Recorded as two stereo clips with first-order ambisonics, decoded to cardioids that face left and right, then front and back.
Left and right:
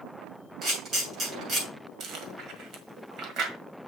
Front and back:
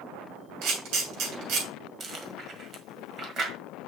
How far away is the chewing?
About 1.6 m.